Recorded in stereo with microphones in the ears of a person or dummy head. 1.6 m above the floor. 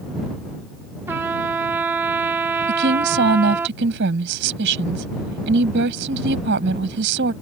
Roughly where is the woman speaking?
Right.